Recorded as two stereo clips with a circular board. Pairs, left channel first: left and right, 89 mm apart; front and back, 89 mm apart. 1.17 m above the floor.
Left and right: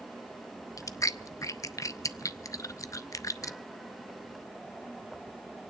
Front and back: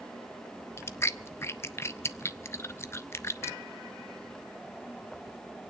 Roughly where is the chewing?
Ahead left.